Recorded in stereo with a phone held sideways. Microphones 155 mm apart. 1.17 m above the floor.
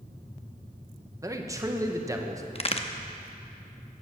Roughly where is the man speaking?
Right.